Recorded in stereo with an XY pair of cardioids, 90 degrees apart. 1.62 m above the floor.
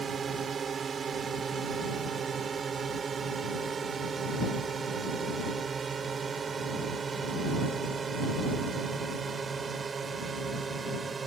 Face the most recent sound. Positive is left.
turn(degrees=-40)